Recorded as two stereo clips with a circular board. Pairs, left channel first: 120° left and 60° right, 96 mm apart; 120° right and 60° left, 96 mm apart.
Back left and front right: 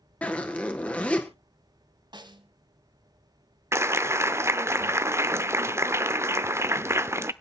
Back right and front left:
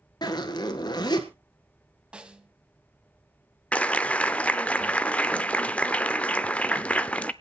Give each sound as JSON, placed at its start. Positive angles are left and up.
{"t": 0.2, "sound": "a zipper", "azimuth_deg": -165, "distance_m": 1.5}
{"t": 2.1, "sound": "a snare drum", "azimuth_deg": -20, "distance_m": 1.0}
{"t": 3.7, "sound": "a clap", "azimuth_deg": -60, "distance_m": 0.5}